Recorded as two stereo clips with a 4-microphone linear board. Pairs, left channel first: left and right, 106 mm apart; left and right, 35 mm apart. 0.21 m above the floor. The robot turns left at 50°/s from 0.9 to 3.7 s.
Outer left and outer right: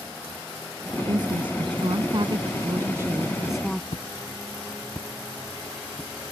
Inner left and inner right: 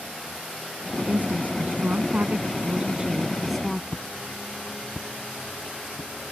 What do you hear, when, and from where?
1.0 s a woman speaking: 50° right; by 3.8 s 175° left
3.9 s footsteps: 75° left (ahead or behind); by 6.1 s 5° left (ahead or behind)